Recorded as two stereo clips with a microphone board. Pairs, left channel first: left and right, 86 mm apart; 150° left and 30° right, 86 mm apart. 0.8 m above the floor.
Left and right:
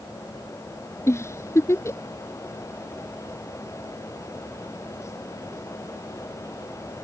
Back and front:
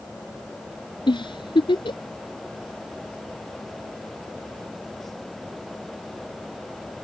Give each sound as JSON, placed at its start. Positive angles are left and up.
{"t": 1.1, "sound": "a giggle", "azimuth_deg": 145}